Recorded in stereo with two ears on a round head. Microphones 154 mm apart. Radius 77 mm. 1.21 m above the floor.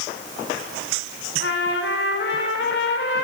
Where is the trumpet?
70° left (ahead or behind), 4 m.